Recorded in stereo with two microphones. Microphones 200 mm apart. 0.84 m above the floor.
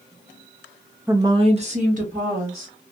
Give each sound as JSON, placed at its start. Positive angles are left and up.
{"t": 1.1, "sound": "a woman speaking", "side_deg": -10, "distance_m": 0.7}